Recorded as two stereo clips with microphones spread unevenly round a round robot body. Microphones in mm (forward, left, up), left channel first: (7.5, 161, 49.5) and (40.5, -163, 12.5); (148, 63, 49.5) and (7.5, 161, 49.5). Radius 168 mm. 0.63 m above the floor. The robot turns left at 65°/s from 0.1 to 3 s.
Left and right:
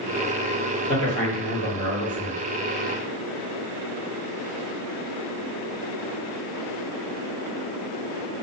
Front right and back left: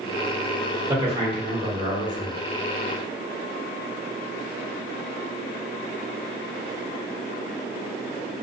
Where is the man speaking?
Straight behind, 1.3 m; by 2.4 s 80° left, 1.3 m.